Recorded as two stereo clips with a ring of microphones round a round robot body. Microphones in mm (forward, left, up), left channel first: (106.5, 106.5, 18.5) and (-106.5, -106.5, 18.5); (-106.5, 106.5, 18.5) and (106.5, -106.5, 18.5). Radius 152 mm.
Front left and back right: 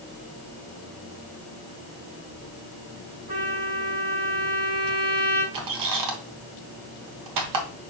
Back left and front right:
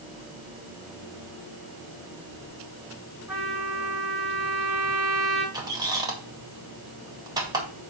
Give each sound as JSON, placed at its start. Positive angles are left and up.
{"t": 3.3, "sound": "a trumpet", "azimuth_deg": -135, "distance_m": 5.0}
{"t": 5.5, "sound": "a squeak", "azimuth_deg": -120, "distance_m": 1.4}